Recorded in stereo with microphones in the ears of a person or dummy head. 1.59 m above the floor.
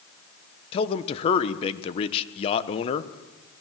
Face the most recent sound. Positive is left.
turn(degrees=35)  # may be behind; listen again after turning